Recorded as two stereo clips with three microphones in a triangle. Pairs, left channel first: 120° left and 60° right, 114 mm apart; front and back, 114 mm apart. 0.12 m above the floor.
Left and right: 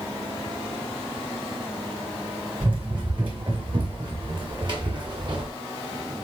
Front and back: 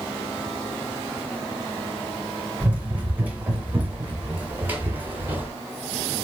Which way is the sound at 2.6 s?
105° right.